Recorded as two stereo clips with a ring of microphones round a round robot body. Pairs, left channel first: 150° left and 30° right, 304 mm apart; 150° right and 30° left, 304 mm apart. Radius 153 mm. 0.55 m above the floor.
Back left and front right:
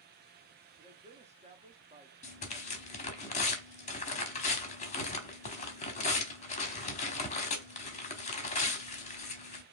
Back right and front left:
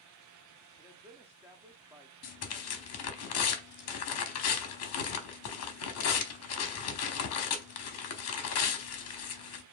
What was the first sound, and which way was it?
A man speaking, 40° right.